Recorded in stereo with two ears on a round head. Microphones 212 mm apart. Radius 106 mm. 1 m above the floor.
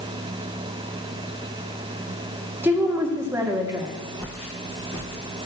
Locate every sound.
2.6 s a woman speaking: 10° right (ahead or behind), 1.9 m
4.2 s footsteps: 5° left (ahead or behind), 8.5 m